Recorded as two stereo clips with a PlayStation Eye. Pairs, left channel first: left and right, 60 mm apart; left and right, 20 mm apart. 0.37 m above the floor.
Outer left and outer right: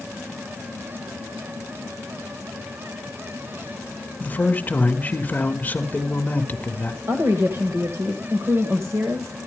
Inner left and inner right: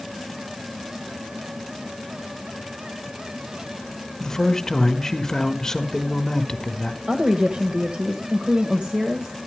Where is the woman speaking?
50° right (ahead or behind), 1.7 m.